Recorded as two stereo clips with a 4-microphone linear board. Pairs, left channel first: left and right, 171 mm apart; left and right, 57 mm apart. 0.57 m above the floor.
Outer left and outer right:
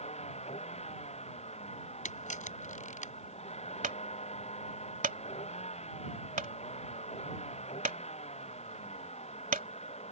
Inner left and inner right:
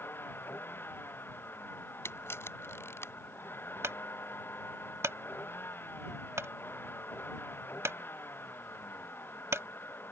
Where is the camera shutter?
50° left (ahead or behind).